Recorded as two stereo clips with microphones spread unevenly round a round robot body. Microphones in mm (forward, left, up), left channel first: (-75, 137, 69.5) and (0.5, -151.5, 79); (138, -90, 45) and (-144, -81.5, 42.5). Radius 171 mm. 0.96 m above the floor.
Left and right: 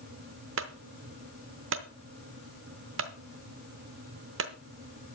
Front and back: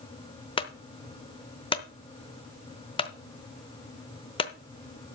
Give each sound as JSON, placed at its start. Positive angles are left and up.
{"t": 0.6, "sound": "a clunk", "azimuth_deg": -60, "distance_m": 0.7}